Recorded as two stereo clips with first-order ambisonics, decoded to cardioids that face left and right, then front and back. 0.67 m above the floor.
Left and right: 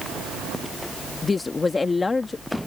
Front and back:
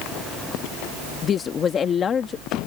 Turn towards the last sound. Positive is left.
turn(degrees=25)